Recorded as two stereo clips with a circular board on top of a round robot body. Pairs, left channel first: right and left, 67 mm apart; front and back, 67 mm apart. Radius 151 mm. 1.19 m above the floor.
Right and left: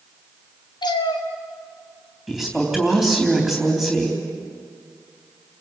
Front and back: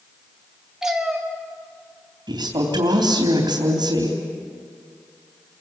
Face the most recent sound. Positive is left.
turn(degrees=-175)